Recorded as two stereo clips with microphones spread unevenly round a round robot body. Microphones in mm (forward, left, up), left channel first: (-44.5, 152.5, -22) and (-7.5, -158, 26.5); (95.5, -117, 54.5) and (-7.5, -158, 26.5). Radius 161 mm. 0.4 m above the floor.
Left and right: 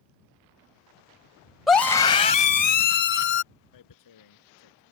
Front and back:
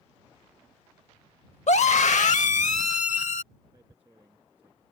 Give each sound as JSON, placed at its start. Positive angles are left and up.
{"t": 1.7, "sound": "a scream", "azimuth_deg": 10}
{"t": 3.7, "sound": "tearing paper", "azimuth_deg": 120}